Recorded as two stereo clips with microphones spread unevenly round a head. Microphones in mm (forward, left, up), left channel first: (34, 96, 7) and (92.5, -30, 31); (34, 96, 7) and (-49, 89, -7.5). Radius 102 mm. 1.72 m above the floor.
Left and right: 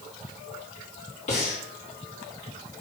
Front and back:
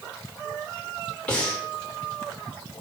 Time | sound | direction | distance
1.3 | breathing | 80° left | 3.5 m